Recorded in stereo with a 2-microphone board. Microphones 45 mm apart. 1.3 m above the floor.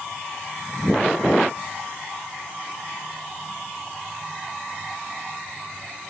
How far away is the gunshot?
I don't hear a gunshot.